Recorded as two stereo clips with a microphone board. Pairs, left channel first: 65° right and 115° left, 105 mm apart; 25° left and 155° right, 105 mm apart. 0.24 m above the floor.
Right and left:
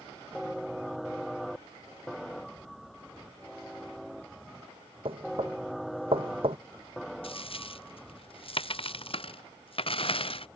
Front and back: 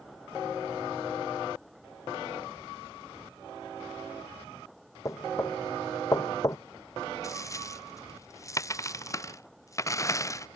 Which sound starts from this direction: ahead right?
A dropped coin, at 7.2 s.